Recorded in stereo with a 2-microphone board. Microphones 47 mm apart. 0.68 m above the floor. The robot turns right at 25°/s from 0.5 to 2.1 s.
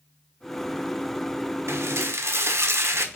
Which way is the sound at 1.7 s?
75° right (ahead or behind).